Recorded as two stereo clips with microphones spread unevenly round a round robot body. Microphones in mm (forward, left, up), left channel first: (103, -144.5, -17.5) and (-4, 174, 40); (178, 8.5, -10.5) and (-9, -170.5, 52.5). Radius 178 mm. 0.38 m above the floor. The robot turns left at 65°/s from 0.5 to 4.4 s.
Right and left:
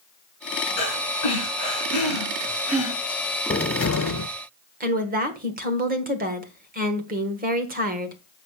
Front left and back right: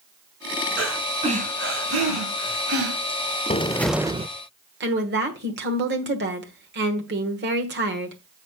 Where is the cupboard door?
15° right, 0.6 m; by 4.3 s 65° right, 0.6 m.